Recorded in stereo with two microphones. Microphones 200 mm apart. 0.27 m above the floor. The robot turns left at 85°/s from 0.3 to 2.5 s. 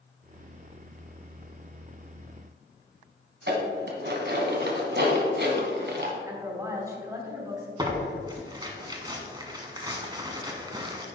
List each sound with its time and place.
3.5 s dishes clattering: 60° right (ahead or behind), 1.4 m
6.2 s a woman speaking: 15° right (ahead or behind), 2.5 m
7.8 s tearing paper: 20° right (ahead or behind), 1.1 m